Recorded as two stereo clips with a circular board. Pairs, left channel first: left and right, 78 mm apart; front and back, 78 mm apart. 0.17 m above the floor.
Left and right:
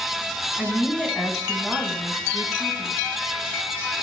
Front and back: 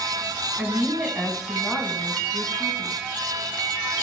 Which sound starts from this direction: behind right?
A woman speaking, at 0.6 s.